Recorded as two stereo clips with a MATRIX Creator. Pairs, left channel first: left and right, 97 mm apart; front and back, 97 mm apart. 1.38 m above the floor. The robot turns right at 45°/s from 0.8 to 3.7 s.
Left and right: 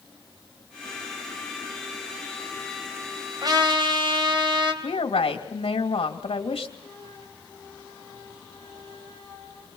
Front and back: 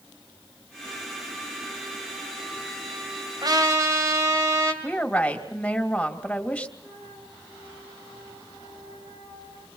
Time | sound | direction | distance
3.4 | a trumpet | 135° right | 3.5 m
4.8 | a woman speaking | 75° left | 2.5 m
6.8 | a flute | 140° right | 8.5 m